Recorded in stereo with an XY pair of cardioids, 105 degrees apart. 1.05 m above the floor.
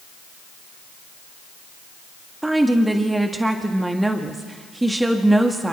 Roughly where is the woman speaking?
Ahead.